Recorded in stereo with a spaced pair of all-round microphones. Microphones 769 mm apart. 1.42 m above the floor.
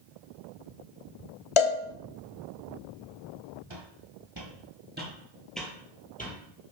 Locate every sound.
1.6 s a cowbell: 45° left (ahead or behind), 0.6 m
3.7 s footsteps: 35° right (ahead or behind), 1.9 m; by 6.7 s 15° left (ahead or behind), 3 m